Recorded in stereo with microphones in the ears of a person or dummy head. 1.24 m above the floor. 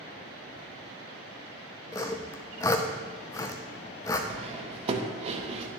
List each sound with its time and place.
1.9 s sawing: 15° left (ahead or behind), 0.7 m
4.3 s cutlery clinking: 35° right (ahead or behind), 1.0 m